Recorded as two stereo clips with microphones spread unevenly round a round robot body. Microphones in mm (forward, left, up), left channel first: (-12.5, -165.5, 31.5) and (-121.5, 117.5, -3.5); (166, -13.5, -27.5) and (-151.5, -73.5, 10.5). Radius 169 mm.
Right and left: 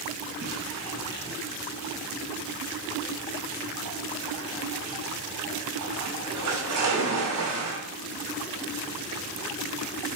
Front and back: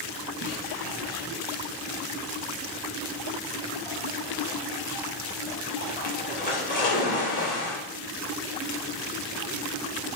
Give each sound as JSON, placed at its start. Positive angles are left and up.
{"t": 0.4, "sound": "a splash", "azimuth_deg": 70, "distance_m": 2.5}